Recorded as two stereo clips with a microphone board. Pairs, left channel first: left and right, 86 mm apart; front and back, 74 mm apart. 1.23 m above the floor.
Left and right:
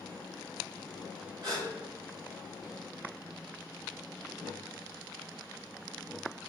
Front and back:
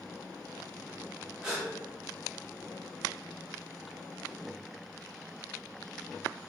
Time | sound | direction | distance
1.4 | a gasp | 110° right | 1.4 m